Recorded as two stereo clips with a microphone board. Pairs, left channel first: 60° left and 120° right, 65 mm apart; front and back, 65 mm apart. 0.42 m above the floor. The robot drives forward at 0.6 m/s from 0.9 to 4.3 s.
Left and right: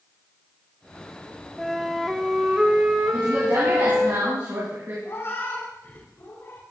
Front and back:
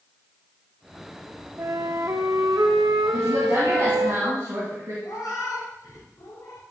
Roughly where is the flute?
Behind left.